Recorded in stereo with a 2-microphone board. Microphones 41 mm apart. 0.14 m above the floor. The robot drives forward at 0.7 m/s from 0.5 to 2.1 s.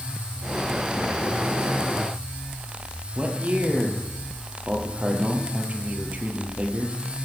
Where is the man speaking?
40° right (ahead or behind), 2.5 m.